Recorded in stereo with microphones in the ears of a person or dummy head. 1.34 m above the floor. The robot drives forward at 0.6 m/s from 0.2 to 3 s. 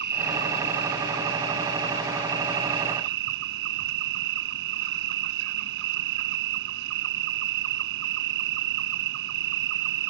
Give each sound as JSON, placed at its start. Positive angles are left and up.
{"t": 0.0, "sound": "an insect", "side_deg": -65}